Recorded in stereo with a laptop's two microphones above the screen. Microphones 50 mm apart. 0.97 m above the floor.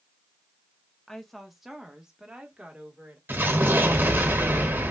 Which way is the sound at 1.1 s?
10° left (ahead or behind).